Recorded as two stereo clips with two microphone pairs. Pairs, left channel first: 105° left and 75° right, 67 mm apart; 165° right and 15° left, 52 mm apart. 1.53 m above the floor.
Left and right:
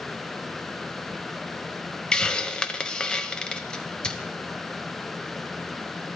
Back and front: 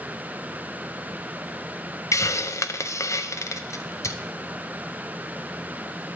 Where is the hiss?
175° right, 0.6 m.